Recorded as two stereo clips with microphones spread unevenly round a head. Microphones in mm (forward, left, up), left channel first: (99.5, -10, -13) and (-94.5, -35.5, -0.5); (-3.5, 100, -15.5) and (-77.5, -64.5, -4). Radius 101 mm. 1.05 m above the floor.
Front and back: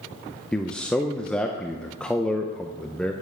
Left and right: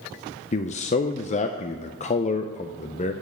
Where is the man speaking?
90° left, 0.6 m.